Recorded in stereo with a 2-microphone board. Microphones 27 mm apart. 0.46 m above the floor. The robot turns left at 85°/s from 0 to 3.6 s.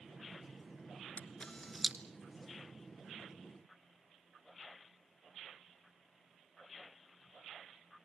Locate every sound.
1.2 s a camera shutter: 55° left (ahead or behind), 1.1 m; by 1.9 s 5° right (ahead or behind), 1.1 m